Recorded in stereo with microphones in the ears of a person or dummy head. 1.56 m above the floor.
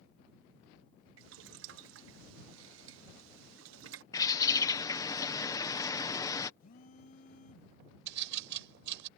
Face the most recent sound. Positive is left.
turn(degrees=-75)  # may be behind; listen again after turning